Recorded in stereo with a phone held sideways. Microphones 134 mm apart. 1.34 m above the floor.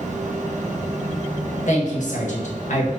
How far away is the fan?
About 0.9 m.